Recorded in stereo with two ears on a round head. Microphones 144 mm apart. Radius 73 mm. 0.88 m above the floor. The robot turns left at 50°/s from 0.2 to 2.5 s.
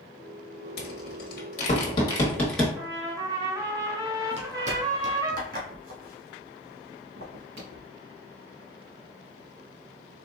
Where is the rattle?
70° left (ahead or behind), 1.3 m; by 2.7 s 5° left (ahead or behind), 1.3 m.